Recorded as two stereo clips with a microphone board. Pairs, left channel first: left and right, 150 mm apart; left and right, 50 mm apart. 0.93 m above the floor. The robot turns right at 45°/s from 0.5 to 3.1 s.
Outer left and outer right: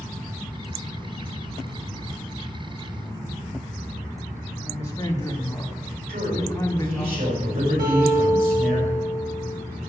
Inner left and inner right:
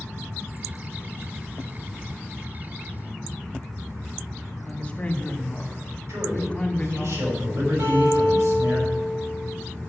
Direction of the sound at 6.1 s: 70° right (ahead or behind).